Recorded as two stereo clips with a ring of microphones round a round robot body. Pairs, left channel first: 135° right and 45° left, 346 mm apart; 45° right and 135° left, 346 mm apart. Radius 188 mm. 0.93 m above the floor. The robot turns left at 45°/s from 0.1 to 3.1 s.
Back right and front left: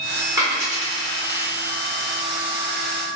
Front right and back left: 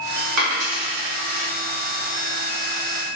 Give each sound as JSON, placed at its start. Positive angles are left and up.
{"t": 0.4, "sound": "a dropped coin", "azimuth_deg": 120, "distance_m": 0.6}